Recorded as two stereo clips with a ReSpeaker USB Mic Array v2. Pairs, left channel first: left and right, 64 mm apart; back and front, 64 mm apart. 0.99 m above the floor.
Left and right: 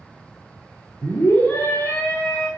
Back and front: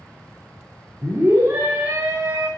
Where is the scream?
50° left, 2.5 m.